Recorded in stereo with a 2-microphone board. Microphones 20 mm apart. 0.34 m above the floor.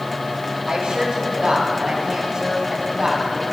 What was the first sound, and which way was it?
A woman speaking, 50° right (ahead or behind).